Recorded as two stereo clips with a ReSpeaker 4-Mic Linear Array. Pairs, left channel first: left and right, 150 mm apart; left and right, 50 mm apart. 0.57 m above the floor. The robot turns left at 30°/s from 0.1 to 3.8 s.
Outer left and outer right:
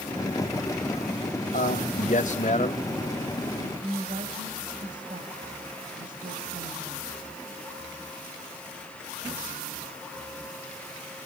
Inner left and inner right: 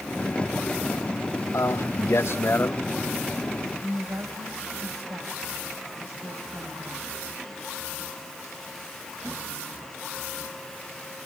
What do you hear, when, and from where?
1.5 s a man speaking: 85° left, 2.5 m; by 2.9 s 45° left, 2.5 m
3.8 s a woman speaking: 65° right (ahead or behind), 3 m